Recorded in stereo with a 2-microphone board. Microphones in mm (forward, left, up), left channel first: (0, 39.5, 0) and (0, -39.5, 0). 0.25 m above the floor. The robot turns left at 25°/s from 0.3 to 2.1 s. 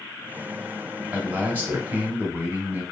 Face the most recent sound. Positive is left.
turn(degrees=-25)  # may be behind; listen again after turning